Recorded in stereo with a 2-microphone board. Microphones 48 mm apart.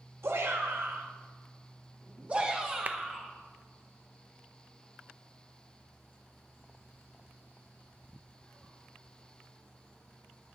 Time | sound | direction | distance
0.2 | a shout | 70° right (ahead or behind) | 2.5 m
2.9 | a clap | 35° right (ahead or behind) | 0.6 m